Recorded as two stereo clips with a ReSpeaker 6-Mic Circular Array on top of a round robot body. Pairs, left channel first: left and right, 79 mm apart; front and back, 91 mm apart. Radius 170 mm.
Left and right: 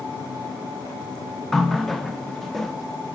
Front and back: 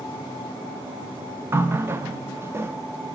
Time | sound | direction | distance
1.5 | a running tap | 175° left | 0.7 m